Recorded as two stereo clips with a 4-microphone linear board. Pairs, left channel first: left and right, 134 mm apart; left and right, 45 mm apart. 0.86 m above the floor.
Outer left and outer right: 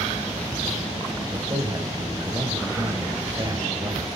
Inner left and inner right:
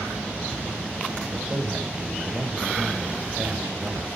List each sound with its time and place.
1.3 s a man speaking: 30° right (ahead or behind), 4.5 m